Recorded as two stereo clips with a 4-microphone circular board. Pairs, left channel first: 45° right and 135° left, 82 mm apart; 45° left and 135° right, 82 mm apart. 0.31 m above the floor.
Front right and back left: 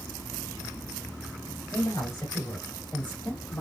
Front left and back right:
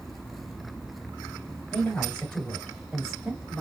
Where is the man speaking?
20° right, 1.9 m; by 3.6 s 90° right, 1.6 m.